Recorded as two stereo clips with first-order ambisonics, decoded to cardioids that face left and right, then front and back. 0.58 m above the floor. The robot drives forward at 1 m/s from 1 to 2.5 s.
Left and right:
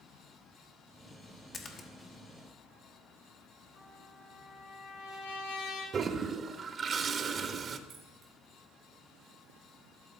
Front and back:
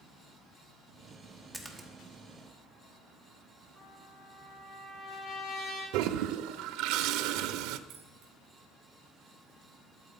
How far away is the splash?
About 1.2 m.